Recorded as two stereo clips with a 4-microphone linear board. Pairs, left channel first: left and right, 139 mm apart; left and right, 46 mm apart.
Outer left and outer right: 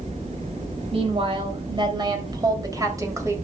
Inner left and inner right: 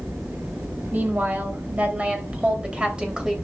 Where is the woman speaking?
40° right (ahead or behind), 3 m; by 3.4 s 20° right (ahead or behind), 3 m.